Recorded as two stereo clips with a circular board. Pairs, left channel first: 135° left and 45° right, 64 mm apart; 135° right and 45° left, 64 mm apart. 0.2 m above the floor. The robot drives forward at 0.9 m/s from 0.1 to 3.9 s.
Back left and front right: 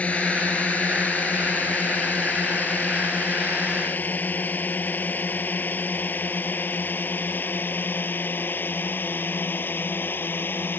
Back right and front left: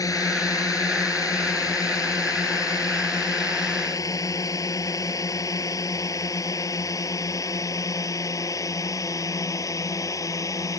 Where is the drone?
155° right; by 10.8 s 165° right.